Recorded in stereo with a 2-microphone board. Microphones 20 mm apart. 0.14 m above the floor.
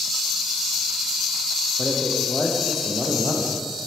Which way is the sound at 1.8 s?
5° right (ahead or behind).